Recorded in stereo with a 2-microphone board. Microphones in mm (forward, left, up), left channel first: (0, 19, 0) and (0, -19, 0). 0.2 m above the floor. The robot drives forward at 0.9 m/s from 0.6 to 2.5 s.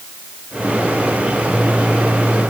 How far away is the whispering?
No whispering in this recording.